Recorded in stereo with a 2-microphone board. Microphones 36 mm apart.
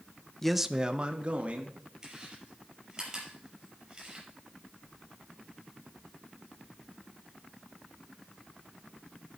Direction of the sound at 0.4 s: 10° left (ahead or behind).